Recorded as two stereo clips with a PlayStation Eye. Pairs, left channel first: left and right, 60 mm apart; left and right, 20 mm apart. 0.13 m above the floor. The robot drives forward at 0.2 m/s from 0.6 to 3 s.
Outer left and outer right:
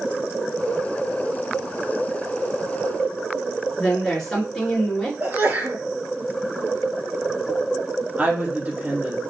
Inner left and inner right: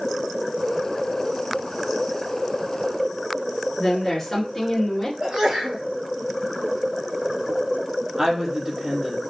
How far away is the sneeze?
About 1.8 m.